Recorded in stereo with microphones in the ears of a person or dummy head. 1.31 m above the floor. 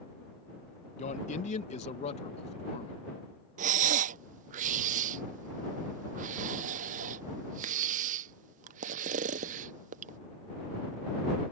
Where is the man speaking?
40° left (ahead or behind); by 3.0 s 35° left (ahead or behind).